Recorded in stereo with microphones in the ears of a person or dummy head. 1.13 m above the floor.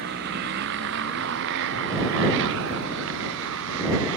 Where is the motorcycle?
50° right (ahead or behind); by 4.2 s 60° right (ahead or behind).